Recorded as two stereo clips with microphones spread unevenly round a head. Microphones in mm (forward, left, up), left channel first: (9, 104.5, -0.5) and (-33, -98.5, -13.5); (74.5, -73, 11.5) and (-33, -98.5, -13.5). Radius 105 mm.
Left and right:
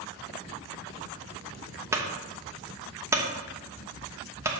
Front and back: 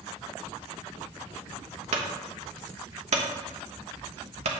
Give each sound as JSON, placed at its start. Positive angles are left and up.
{"t": 1.9, "sound": "a clunk", "azimuth_deg": 180, "distance_m": 1.0}